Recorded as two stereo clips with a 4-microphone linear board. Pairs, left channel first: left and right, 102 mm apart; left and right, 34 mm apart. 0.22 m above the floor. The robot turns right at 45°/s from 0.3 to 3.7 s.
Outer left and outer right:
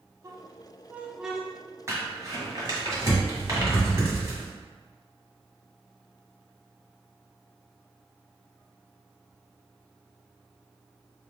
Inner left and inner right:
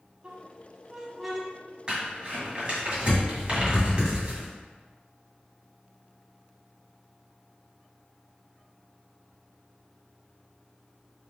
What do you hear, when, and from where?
0.2 s a squeak: 30° right (ahead or behind), 0.8 m; by 1.5 s 5° left (ahead or behind), 0.8 m
1.9 s crumpling: 25° right (ahead or behind), 1.7 m